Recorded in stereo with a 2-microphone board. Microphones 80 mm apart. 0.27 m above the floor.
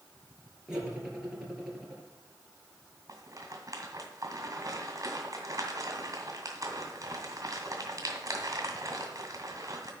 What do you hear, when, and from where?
0.7 s cutlery clinking: 10° right (ahead or behind), 3 m
3.1 s a rattle: 45° right (ahead or behind), 1.8 m